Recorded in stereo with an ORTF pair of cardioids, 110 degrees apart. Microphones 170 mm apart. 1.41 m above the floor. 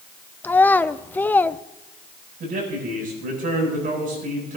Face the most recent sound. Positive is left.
turn(degrees=-55)